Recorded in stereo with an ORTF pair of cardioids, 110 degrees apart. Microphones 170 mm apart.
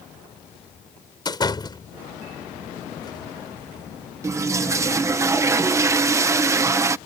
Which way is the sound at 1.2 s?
25° left.